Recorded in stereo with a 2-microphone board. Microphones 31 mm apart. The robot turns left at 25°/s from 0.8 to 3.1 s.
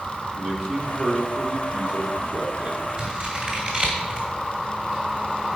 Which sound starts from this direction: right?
Scissors, at 3.0 s.